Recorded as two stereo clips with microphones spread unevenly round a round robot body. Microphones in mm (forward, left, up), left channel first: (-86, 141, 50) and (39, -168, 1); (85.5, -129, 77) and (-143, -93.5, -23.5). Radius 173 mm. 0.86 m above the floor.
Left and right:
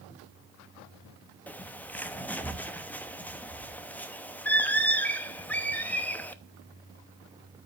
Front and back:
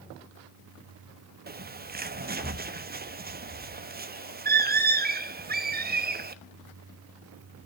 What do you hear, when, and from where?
1.5 s a bird: 160° right, 1.0 m